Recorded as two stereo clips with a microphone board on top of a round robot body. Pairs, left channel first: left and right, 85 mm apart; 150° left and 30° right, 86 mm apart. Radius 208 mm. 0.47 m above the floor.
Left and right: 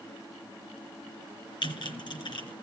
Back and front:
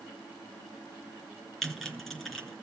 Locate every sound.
1.6 s typing on a keyboard: 65° left, 3.5 m